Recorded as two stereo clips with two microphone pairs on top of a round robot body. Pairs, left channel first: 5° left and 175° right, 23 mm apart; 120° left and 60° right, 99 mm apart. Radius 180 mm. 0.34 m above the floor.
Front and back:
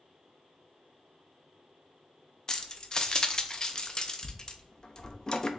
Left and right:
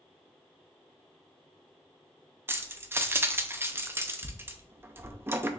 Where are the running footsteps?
I don't hear running footsteps.